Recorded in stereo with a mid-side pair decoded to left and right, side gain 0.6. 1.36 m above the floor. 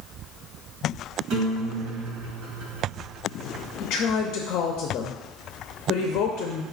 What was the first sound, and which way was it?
A guitar, 65° right.